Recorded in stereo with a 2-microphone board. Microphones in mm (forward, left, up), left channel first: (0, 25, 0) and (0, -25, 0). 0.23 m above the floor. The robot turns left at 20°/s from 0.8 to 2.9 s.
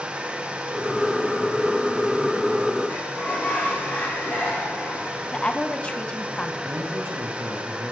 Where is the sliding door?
30° left (ahead or behind), 5.5 m.